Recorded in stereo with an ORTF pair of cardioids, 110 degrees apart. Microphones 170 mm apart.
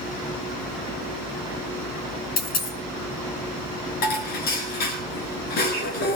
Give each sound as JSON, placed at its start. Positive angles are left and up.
{"t": 2.4, "sound": "a dropped coin", "azimuth_deg": 65, "distance_m": 5.5}
{"t": 4.0, "sound": "dishes clattering", "azimuth_deg": 70, "distance_m": 7.0}